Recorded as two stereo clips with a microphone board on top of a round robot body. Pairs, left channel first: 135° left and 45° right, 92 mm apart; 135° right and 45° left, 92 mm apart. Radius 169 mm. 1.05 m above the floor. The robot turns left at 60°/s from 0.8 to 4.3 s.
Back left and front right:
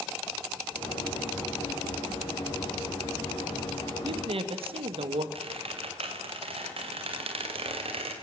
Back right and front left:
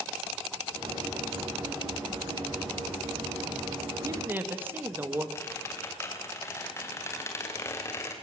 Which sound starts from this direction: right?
A squeak, at 5.3 s.